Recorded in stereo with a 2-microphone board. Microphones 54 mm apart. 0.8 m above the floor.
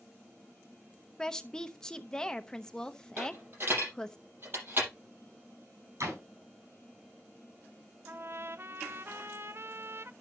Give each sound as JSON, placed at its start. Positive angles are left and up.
{"t": 1.2, "sound": "a woman speaking", "side_deg": 15, "distance_m": 0.8}
{"t": 3.2, "sound": "a dropped coin", "side_deg": -45, "distance_m": 7.0}
{"t": 6.0, "sound": "a door slam", "side_deg": -75, "distance_m": 5.5}
{"t": 8.1, "sound": "a trumpet", "side_deg": -50, "distance_m": 0.5}